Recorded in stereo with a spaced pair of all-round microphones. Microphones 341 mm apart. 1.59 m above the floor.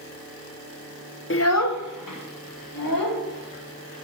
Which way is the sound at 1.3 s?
35° left (ahead or behind).